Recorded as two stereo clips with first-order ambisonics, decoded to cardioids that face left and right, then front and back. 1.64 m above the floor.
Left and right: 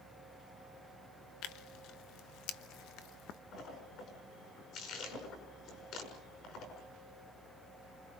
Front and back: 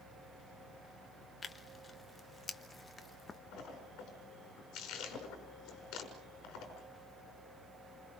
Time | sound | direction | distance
1.4 | tearing paper | 70° left | 1.2 m
3.5 | a splash | 40° left | 6 m